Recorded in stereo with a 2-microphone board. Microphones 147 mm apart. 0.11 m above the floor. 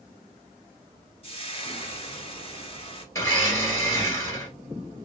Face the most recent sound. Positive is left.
turn(degrees=20)  # may be behind; listen again after turning